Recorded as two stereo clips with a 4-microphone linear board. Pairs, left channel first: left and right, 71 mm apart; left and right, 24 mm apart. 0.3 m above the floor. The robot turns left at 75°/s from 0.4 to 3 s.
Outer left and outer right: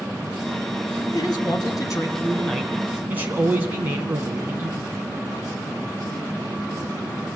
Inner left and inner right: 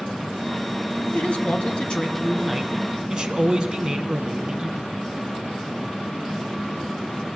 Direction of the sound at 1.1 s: 115° left.